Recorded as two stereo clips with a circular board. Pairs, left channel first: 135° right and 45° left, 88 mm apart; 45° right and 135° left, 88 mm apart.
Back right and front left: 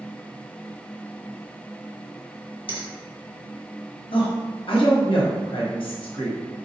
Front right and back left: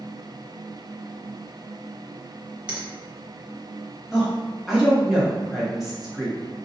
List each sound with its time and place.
2.7 s a finger snap: 145° right, 0.9 m
4.1 s a woman speaking: 140° right, 1.1 m